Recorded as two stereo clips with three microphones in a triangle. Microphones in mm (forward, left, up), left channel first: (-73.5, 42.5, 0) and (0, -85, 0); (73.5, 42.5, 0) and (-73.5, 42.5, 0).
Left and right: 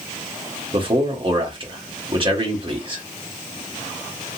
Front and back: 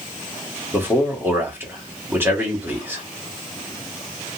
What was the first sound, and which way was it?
A man speaking, 105° right.